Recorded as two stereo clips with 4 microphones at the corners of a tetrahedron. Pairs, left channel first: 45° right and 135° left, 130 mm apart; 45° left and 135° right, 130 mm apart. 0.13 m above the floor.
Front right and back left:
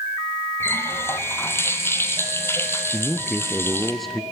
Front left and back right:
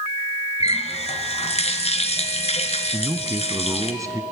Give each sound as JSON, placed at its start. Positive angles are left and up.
{"t": 0.6, "sound": "a running tap", "azimuth_deg": 25, "distance_m": 1.8}
{"t": 2.9, "sound": "a man speaking", "azimuth_deg": -135, "distance_m": 1.2}